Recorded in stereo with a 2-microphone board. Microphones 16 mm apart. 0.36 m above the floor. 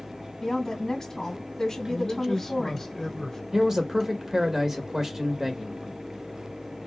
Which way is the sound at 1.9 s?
30° left (ahead or behind).